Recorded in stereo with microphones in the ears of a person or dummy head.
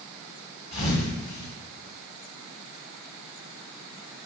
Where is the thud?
30° left (ahead or behind), 2.0 m.